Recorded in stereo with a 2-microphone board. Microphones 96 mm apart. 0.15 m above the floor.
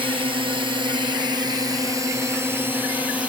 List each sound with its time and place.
0.0 s a drone: 65° right (ahead or behind); by 3.3 s 15° right (ahead or behind)